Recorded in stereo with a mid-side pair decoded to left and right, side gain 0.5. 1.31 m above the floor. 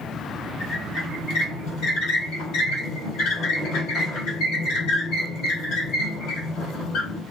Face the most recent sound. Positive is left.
turn(degrees=70)